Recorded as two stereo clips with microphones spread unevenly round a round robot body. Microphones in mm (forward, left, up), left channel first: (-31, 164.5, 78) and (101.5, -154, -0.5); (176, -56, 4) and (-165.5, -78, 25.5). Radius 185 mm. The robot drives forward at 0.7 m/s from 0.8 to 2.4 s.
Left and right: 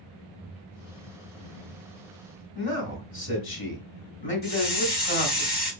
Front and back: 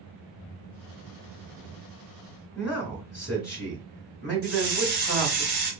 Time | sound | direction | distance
2.5 | a man speaking | 95° left | 1.4 m
4.4 | a hiss | 120° left | 2 m